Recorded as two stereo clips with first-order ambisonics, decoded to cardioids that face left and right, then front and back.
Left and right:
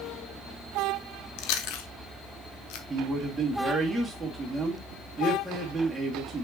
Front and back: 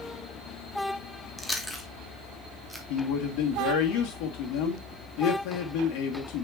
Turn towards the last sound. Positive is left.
turn(degrees=-5)